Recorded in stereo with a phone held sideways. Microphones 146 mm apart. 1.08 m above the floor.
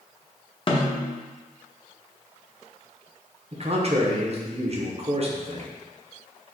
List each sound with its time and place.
0.7 s a snare drum: 35° left (ahead or behind), 0.7 m
3.5 s a man speaking: 45° right (ahead or behind), 0.8 m